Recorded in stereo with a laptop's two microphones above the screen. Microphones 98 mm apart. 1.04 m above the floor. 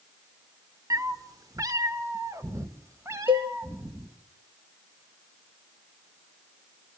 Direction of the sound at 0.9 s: 40° right (ahead or behind).